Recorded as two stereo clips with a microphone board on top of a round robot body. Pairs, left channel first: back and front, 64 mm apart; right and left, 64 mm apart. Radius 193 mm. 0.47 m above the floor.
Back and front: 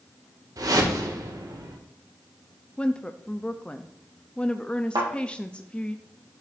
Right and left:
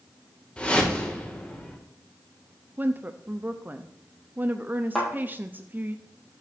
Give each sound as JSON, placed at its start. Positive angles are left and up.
{"t": 0.6, "sound": "a whoosh", "azimuth_deg": -20, "distance_m": 2.0}
{"t": 2.8, "sound": "a woman speaking", "azimuth_deg": 120, "distance_m": 0.8}
{"t": 5.0, "sound": "a thud", "azimuth_deg": -5, "distance_m": 4.5}